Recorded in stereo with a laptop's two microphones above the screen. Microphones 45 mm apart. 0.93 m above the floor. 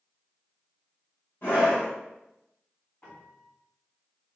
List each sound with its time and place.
1.4 s a scream: 55° left (ahead or behind), 2.0 m
3.0 s a piano: 25° left (ahead or behind), 2 m